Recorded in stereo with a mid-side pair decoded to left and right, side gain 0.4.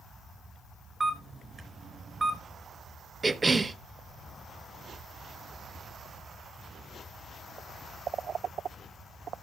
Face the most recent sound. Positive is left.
turn(degrees=-30)